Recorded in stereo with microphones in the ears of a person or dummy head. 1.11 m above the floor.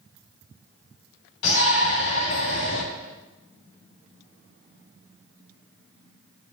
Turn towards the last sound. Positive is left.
turn(degrees=70)  # may be behind; listen again after turning